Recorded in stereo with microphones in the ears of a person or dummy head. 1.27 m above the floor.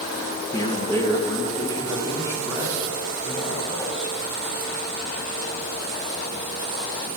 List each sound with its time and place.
0.5 s a man speaking: 20° left (ahead or behind), 1.5 m; by 4.1 s 25° left (ahead or behind), 5.5 m